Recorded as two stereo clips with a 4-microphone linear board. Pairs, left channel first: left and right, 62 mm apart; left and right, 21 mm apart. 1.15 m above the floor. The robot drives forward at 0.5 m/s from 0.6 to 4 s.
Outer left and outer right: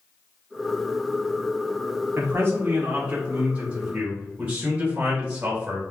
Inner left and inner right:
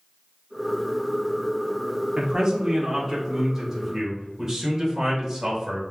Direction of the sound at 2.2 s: 35° right (ahead or behind).